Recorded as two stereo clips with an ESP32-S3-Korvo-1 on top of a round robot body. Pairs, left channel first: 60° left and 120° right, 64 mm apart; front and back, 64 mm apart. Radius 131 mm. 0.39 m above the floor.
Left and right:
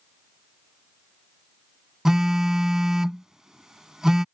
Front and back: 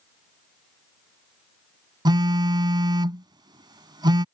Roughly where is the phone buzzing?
Behind.